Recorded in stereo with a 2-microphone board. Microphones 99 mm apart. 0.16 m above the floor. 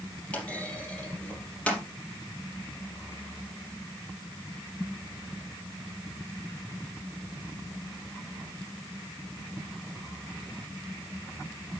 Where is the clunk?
15° left (ahead or behind), 4.5 m.